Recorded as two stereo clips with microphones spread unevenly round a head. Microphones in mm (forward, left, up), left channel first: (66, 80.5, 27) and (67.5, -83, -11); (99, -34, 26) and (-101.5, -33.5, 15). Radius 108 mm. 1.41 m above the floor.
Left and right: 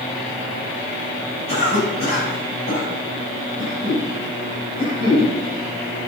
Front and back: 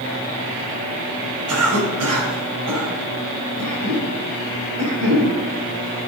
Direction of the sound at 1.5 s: 155° left.